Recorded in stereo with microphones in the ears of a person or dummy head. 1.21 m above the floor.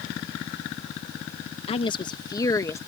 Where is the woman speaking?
30° left (ahead or behind); by 2.8 s 15° left (ahead or behind).